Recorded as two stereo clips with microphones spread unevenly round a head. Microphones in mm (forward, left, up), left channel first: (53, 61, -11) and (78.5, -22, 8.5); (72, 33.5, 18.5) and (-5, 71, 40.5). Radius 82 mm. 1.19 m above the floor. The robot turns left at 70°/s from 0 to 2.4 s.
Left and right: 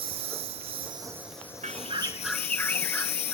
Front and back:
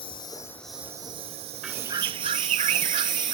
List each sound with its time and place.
0.0 s a lawn mower: 65° right; by 3.4 s 120° left
1.6 s a bird: 120° right; by 3.4 s 175° right